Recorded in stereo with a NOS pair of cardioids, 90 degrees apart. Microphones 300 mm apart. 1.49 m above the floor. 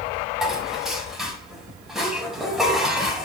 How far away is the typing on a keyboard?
I don't hear typing on a keyboard.